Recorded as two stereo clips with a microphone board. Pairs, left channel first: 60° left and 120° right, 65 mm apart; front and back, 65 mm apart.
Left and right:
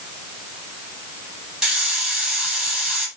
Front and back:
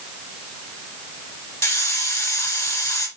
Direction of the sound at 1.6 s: 35° right.